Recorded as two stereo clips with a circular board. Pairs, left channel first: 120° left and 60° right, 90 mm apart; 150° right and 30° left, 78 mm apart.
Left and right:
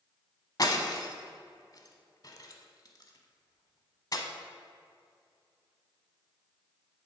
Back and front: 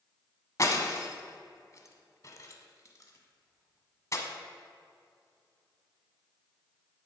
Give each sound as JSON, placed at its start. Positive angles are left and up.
{"t": 0.6, "sound": "breaking glass", "azimuth_deg": 165, "distance_m": 1.0}